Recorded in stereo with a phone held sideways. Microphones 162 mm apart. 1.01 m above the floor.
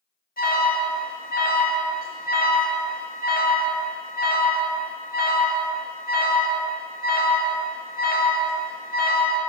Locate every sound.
0.4 s an alarm: 65° left (ahead or behind), 2.5 m